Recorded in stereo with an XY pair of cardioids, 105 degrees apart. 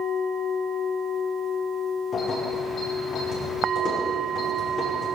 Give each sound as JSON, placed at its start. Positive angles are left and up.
{"t": 2.1, "sound": "keys jangling", "azimuth_deg": 60, "distance_m": 8.0}